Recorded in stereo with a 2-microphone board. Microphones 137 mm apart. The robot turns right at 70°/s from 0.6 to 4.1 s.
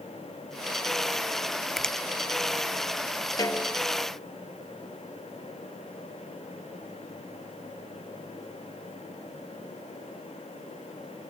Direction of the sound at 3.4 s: 145° left.